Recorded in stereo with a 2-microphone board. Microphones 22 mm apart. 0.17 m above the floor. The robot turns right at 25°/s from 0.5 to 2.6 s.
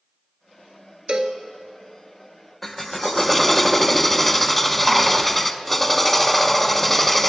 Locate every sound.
1.1 s a cowbell: 45° right (ahead or behind), 0.9 m; by 1.4 s 50° right (ahead or behind), 0.9 m
2.6 s a drill: 15° left (ahead or behind), 0.6 m